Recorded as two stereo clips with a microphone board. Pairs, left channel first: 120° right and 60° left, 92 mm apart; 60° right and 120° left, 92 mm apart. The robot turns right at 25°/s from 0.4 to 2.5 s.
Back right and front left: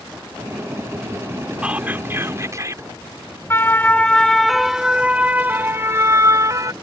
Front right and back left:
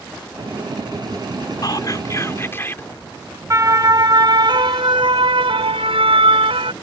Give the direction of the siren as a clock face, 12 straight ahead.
6 o'clock.